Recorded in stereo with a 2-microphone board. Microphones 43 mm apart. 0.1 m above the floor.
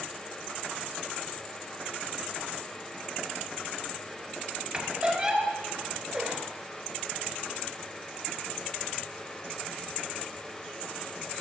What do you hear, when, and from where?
4.7 s a squeak: 25° right (ahead or behind), 1.2 m